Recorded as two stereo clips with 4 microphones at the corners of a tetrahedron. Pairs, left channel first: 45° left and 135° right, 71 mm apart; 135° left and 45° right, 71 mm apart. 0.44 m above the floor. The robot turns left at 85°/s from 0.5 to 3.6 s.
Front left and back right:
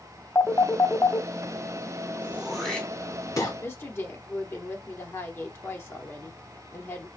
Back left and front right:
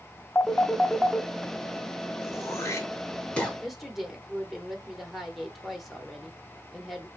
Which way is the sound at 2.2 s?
165° left.